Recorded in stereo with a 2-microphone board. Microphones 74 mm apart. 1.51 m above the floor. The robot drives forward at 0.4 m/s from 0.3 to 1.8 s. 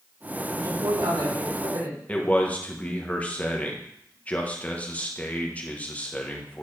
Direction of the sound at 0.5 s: 70° right (ahead or behind).